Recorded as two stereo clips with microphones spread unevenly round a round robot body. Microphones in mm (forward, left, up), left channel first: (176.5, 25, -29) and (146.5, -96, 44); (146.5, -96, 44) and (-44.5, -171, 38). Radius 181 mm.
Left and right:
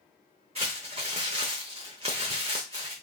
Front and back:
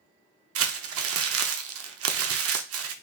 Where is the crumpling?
160° right, 0.5 m.